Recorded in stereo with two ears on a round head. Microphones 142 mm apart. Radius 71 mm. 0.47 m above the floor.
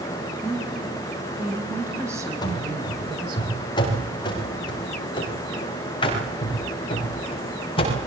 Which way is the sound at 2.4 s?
25° left (ahead or behind).